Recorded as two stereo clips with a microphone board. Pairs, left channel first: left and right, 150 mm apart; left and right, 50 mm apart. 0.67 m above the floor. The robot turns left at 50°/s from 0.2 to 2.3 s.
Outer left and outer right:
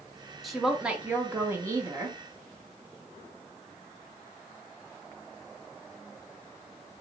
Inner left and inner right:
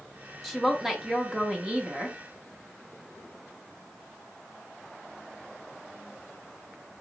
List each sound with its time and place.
0.4 s a woman speaking: centre (ahead or behind), 0.8 m; by 2.2 s 20° right (ahead or behind), 0.8 m